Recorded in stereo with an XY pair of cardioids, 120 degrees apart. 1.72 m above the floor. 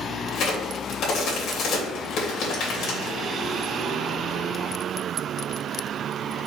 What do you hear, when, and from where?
0.3 s a crack: 65° left, 2.5 m